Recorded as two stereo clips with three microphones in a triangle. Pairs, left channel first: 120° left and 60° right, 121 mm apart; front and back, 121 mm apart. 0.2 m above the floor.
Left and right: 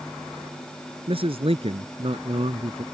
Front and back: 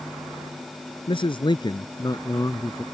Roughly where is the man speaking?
Ahead right.